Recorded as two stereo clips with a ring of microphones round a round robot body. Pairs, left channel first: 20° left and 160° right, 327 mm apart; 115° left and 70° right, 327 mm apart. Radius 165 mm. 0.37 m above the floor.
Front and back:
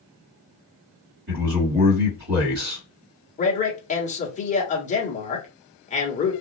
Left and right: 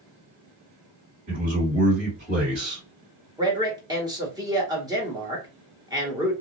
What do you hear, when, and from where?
1.3 s a man speaking: 125° right, 2 m
3.4 s a man speaking: 5° right, 1.1 m